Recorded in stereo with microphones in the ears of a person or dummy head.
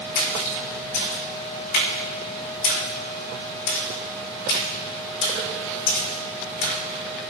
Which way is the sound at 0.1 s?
65° left (ahead or behind).